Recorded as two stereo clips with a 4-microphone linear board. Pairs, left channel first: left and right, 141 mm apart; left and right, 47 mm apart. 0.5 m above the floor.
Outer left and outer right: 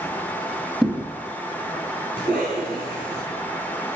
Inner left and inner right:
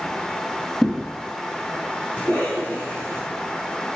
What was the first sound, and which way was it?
A thud, 5° right (ahead or behind).